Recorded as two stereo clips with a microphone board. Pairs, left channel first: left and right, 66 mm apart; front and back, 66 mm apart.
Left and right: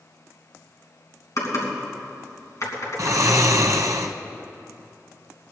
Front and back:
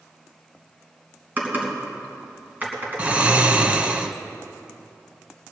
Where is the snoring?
115° right, 0.9 m.